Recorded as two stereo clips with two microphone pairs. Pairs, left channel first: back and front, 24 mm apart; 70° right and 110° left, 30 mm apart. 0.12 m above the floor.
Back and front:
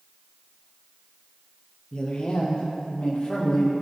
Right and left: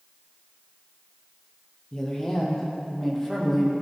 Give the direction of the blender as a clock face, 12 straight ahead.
I don't hear a blender.